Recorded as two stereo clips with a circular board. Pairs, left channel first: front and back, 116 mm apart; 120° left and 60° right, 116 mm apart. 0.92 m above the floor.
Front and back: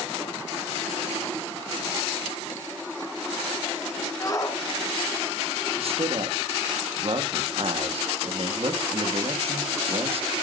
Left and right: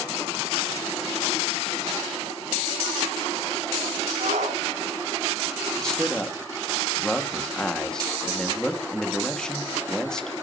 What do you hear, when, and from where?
4.2 s a shout: 60° right, 5 m
5.8 s a man speaking: 155° right, 1.8 m